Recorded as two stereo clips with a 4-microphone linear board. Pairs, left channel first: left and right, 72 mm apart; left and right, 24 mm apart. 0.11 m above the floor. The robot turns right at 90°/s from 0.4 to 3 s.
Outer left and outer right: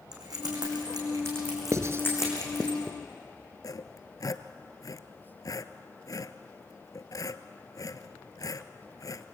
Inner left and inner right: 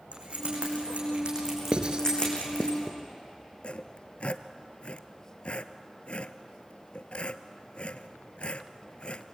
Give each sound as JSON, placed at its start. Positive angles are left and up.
{"t": 0.1, "sound": "keys jangling", "side_deg": -60, "distance_m": 6.0}
{"t": 1.7, "sound": "writing", "side_deg": -45, "distance_m": 1.3}
{"t": 3.6, "sound": "sawing", "side_deg": 55, "distance_m": 0.9}